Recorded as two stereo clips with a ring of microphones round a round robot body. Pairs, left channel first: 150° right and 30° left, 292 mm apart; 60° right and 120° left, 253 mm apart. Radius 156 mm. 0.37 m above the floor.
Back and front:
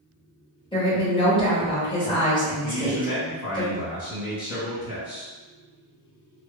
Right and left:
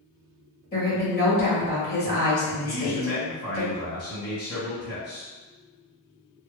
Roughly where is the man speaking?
Right.